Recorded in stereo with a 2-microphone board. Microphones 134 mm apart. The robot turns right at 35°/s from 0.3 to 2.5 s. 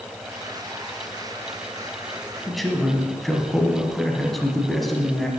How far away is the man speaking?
About 1.3 m.